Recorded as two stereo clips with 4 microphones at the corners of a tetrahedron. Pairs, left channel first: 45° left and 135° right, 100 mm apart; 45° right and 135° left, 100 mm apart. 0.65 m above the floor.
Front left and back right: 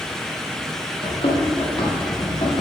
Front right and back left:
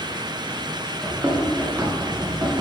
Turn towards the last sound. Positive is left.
turn(degrees=80)